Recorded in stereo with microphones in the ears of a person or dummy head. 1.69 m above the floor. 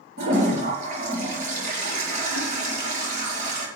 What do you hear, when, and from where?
0.2 s a toilet flushing: 40° right (ahead or behind), 7.5 m